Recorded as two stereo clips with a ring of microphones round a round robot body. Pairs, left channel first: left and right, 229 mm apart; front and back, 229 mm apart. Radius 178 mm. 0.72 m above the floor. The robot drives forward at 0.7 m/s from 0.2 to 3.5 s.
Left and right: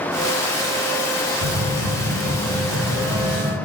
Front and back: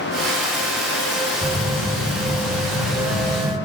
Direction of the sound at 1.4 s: 115° right.